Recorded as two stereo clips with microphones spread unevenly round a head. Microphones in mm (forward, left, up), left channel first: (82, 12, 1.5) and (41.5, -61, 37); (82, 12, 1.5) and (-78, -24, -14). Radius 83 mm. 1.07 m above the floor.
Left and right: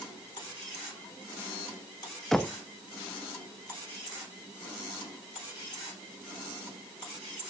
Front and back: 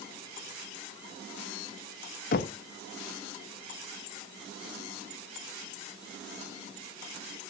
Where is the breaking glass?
I don't hear breaking glass.